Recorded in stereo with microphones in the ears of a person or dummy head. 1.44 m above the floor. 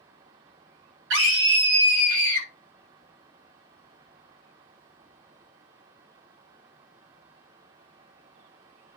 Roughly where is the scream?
Right.